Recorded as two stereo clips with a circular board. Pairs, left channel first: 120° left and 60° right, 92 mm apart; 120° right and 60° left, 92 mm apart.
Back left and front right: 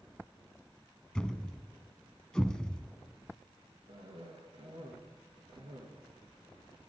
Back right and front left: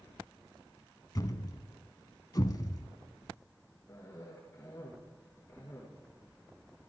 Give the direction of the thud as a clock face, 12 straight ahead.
5 o'clock.